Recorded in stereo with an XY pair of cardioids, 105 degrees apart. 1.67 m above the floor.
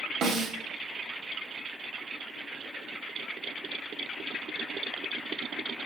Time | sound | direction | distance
0.2 | a snare drum | 65° right | 1.0 m